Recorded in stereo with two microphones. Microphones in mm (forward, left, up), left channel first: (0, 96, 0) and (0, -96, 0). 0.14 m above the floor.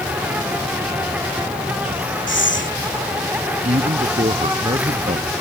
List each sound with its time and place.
0.0 s an insect: 5° right (ahead or behind)
2.3 s breathing: 80° left
3.6 s a man speaking: 35° right (ahead or behind)